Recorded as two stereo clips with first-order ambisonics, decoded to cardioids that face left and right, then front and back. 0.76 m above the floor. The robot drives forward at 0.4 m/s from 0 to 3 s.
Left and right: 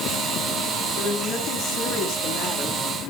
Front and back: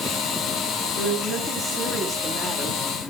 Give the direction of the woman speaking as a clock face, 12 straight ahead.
10 o'clock.